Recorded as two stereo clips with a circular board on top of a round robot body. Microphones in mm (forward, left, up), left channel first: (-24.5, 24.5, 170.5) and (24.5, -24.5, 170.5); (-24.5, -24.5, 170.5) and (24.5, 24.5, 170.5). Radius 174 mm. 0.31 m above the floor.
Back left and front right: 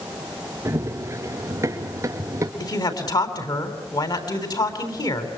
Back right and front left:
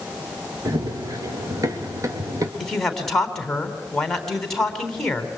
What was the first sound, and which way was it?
Running footsteps, 10° left.